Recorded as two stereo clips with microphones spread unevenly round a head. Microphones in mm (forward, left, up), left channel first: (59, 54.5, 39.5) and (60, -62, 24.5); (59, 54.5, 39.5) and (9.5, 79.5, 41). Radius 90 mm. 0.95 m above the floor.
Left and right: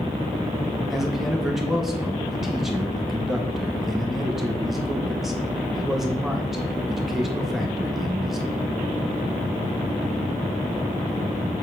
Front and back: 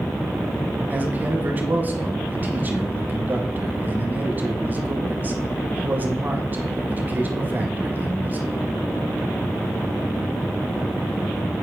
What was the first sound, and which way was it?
A man speaking, 170° right.